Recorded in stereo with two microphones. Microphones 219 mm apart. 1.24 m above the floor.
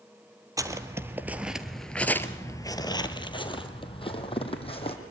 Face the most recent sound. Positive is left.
turn(degrees=25)  # may be behind; listen again after turning